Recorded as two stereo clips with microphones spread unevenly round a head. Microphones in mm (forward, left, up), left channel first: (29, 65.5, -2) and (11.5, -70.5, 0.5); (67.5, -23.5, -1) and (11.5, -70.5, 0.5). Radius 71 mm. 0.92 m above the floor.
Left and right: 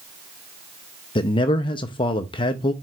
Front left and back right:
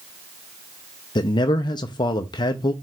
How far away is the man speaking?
About 0.6 m.